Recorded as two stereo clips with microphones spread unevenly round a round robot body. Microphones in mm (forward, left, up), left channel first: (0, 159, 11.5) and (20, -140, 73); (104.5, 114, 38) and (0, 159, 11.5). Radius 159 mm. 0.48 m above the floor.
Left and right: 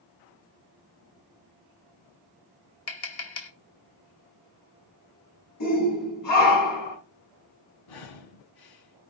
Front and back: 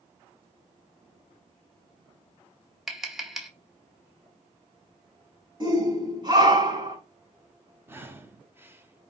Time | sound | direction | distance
2.9 | tapping | 75° left | 2 m
5.6 | a shout | 110° left | 5 m
7.9 | breathing | 80° left | 1.6 m